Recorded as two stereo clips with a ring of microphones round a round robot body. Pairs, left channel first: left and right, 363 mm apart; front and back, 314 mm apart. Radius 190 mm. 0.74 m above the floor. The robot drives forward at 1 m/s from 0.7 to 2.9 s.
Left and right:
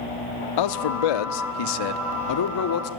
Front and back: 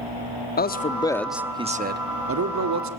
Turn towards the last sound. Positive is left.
turn(degrees=145)